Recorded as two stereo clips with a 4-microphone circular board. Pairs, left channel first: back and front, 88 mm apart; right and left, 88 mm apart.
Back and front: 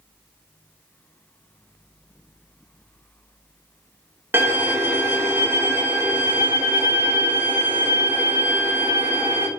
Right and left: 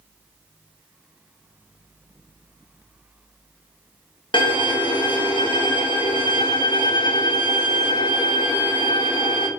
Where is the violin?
65° right, 0.6 m.